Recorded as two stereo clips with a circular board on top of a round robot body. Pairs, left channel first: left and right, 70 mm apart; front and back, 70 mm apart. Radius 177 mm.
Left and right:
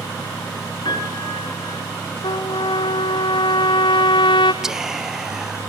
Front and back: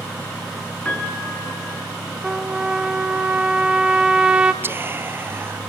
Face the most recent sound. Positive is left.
turn(degrees=-170)